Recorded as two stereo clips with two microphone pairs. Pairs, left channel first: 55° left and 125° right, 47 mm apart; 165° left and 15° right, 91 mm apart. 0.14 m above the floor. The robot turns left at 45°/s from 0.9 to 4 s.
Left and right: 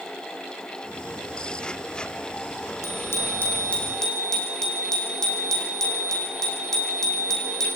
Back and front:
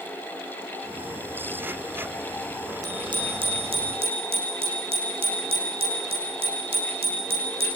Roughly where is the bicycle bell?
Ahead left.